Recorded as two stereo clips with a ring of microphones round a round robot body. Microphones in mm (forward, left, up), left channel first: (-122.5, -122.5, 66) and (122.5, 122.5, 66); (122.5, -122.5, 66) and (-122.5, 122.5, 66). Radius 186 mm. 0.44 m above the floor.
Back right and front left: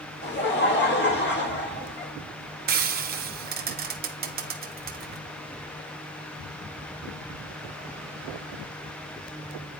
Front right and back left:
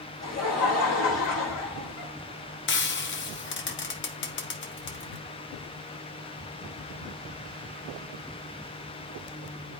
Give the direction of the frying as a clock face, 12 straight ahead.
12 o'clock.